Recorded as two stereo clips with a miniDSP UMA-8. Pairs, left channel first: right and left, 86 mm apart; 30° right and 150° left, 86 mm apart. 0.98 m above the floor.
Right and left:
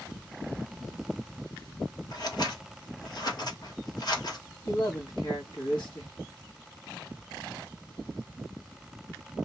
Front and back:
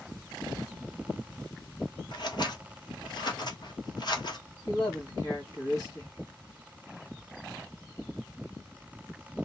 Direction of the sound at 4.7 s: 70° right.